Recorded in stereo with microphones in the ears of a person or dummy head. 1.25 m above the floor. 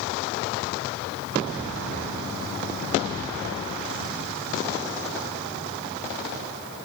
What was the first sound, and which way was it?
Only background noise.